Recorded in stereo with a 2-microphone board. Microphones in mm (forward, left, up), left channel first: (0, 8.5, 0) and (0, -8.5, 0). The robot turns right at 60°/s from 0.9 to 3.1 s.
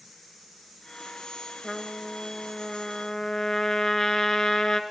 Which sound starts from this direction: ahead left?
A trumpet, at 1.6 s.